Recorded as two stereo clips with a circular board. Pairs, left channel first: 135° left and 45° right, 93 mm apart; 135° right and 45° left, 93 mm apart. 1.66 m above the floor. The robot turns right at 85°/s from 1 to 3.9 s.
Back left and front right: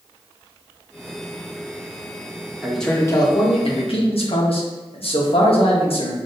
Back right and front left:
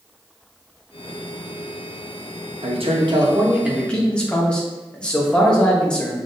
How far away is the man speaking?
About 1.5 m.